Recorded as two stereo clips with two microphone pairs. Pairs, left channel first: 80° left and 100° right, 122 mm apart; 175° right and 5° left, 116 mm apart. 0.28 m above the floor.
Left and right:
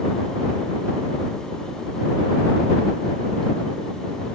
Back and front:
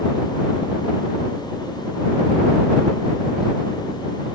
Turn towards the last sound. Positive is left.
No sound to turn to.